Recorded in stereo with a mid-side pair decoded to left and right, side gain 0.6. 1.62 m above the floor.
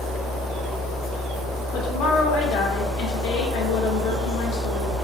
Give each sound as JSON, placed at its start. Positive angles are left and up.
{"t": 0.0, "sound": "a fan", "azimuth_deg": 55, "distance_m": 1.9}
{"t": 1.7, "sound": "a woman speaking", "azimuth_deg": 60, "distance_m": 1.5}